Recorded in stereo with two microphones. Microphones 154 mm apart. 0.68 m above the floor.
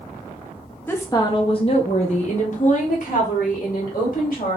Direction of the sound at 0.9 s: 15° left (ahead or behind).